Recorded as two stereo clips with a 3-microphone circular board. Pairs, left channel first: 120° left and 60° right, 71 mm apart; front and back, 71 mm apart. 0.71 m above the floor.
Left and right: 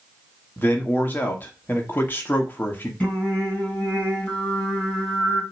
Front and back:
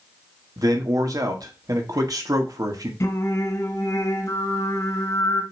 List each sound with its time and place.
0.6 s a man speaking: 175° left, 1.5 m
3.0 s singing: 45° left, 2.5 m